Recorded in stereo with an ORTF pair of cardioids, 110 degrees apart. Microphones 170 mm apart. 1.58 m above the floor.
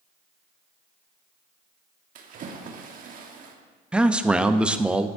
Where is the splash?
55° right, 1.4 m.